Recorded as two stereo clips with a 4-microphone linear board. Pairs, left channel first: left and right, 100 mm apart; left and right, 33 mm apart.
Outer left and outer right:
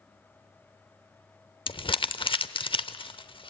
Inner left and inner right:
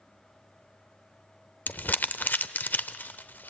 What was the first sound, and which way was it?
Crumpling, 60° left (ahead or behind).